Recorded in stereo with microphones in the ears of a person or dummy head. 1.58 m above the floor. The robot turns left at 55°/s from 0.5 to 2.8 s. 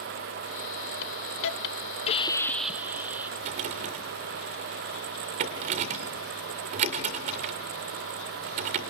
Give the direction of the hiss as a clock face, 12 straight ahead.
9 o'clock.